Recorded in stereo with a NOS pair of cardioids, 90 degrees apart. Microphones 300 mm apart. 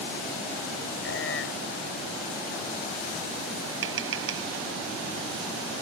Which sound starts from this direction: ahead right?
Tapping, at 3.8 s.